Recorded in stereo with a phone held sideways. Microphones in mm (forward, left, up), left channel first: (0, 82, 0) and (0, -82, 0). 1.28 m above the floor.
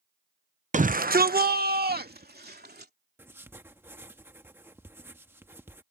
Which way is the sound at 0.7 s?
50° right (ahead or behind).